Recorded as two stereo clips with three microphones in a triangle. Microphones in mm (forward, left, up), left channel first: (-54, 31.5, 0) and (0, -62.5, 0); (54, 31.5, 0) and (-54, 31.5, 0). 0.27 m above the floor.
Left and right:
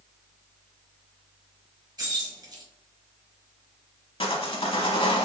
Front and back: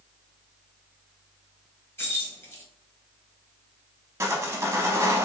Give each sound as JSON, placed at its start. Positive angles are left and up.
{"t": 2.0, "sound": "keys jangling", "azimuth_deg": -55, "distance_m": 1.2}
{"t": 4.2, "sound": "sawing", "azimuth_deg": 120, "distance_m": 0.7}